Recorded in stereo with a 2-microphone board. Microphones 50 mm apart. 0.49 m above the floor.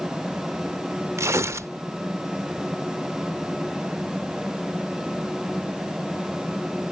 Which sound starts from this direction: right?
Tearing paper, at 1.2 s.